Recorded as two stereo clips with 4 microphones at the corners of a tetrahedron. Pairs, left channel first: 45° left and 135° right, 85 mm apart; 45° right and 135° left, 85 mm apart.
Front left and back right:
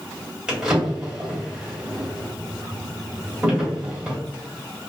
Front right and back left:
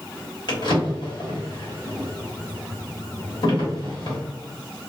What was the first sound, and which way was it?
A drawer, 55° right.